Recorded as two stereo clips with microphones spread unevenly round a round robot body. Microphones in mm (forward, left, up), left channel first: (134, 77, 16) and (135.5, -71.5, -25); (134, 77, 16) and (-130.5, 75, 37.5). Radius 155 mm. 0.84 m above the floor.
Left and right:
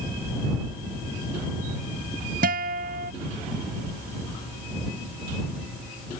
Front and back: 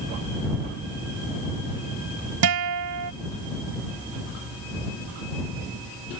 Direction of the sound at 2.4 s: 145° right.